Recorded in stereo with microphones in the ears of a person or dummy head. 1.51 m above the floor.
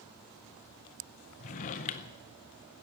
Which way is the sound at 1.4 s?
35° left (ahead or behind).